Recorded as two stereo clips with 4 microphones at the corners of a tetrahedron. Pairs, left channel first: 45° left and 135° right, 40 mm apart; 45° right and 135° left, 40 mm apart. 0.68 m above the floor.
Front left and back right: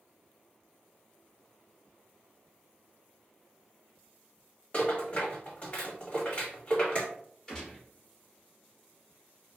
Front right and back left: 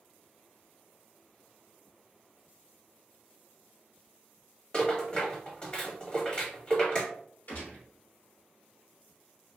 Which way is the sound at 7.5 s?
35° right.